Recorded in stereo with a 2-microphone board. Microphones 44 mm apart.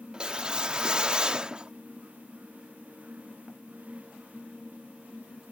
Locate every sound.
0.1 s a whoosh: 20° right (ahead or behind)